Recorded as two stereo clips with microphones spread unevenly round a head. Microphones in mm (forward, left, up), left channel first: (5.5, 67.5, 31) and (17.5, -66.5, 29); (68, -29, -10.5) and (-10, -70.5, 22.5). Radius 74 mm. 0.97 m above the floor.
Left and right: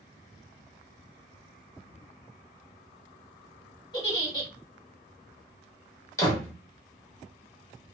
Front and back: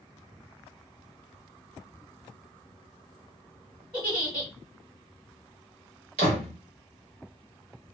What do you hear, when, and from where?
3.9 s a giggle: 155° left, 1.2 m
6.2 s a door slam: 165° left, 1.0 m